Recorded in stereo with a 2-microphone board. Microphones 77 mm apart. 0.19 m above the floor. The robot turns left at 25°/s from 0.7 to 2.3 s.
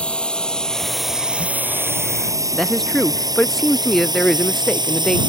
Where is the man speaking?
5° left (ahead or behind).